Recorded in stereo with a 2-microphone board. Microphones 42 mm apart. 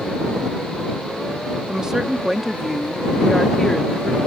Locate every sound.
1.7 s a woman speaking: 20° right (ahead or behind); by 4.2 s 15° left (ahead or behind)